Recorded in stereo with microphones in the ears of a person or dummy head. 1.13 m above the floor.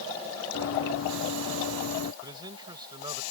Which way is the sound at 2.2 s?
20° right (ahead or behind).